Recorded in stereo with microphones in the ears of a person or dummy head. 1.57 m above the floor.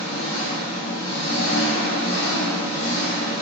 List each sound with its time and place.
0.0 s an engine running: 75° left (ahead or behind), 0.8 m